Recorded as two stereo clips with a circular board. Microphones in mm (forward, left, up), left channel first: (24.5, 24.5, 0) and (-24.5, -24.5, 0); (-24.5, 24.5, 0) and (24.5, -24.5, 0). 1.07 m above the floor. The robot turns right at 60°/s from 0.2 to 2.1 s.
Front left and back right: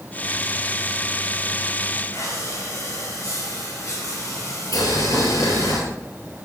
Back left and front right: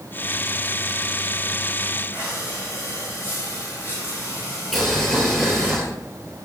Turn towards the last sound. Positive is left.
turn(degrees=50)